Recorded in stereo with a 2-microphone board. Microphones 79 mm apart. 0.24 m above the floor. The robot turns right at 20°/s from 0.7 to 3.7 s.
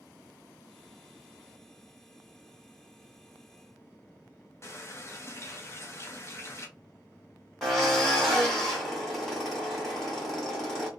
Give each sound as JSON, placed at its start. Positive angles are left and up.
{"t": 4.6, "sound": "a running tap", "side_deg": 35, "distance_m": 0.9}
{"t": 7.6, "sound": "a drill", "side_deg": 5, "distance_m": 1.5}